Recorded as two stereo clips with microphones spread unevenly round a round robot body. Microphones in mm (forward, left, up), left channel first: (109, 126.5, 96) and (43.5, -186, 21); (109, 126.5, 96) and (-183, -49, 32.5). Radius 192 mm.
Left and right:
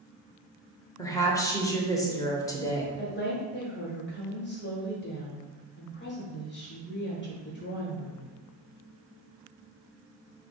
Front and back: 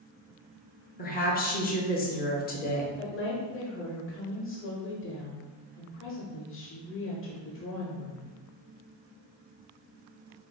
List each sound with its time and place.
1.0 s a woman speaking: 20° right, 0.9 m
3.0 s a woman speaking: 40° left, 1.1 m